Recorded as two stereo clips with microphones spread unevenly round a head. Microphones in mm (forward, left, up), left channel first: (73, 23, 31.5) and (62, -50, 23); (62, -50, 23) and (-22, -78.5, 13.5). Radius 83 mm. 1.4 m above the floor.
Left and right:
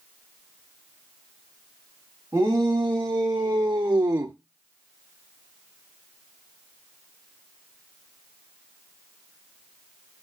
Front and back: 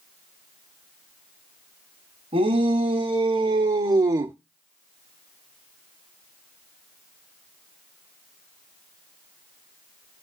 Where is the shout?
175° right, 3 m; by 4.3 s 135° right, 0.5 m.